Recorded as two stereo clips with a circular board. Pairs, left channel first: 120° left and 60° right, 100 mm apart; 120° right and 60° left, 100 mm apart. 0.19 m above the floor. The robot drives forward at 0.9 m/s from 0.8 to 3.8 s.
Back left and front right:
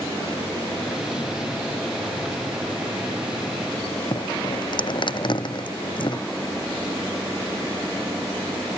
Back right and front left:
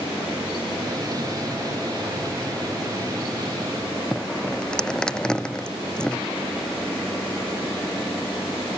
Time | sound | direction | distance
4.1 | dripping | 160° left | ?